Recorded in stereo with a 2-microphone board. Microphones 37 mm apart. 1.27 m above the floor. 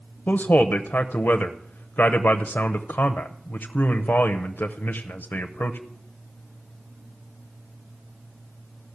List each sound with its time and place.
0.3 s a man speaking: 55° left (ahead or behind), 0.7 m